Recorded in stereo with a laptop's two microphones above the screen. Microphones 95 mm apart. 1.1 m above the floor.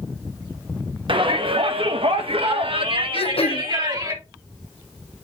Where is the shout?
60° right (ahead or behind), 1.5 m; by 4.1 s 40° right (ahead or behind), 1.4 m.